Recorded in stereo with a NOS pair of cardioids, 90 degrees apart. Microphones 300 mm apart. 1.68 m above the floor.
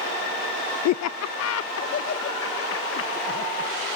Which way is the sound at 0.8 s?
70° left.